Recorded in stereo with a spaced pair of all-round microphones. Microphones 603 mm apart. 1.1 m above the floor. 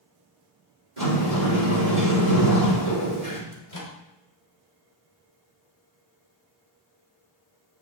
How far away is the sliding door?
About 3.5 m.